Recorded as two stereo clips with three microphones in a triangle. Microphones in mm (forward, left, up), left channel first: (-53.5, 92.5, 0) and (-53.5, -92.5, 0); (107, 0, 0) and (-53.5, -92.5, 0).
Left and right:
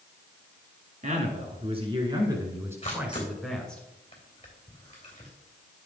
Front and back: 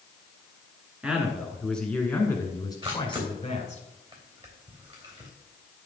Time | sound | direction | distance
1.0 | a man speaking | 70° right | 2 m
2.8 | a camera shutter | 150° left | 3 m